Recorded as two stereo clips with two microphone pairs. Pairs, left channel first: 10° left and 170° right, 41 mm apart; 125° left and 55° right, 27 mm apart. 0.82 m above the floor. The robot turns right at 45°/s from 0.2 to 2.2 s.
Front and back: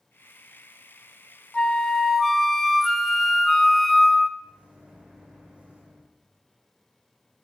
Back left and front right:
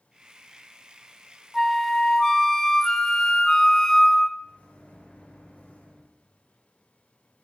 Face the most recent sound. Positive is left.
turn(degrees=130)